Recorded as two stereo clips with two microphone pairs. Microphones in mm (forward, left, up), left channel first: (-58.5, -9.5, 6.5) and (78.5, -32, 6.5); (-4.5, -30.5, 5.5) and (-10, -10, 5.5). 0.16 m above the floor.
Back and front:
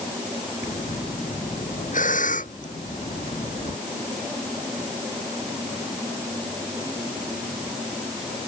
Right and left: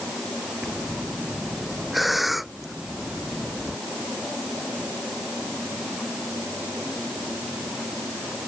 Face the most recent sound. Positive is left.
turn(degrees=-170)